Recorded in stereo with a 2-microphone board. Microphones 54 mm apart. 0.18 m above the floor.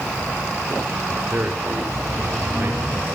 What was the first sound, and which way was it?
A man speaking, 45° right (ahead or behind).